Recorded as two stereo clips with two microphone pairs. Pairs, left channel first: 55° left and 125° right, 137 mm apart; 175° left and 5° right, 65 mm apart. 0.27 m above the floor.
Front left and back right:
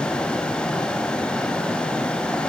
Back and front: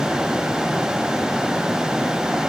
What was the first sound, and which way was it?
Only background noise.